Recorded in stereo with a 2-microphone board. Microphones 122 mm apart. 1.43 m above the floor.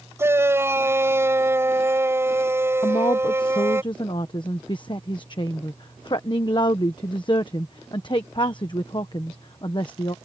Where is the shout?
20° right (ahead or behind).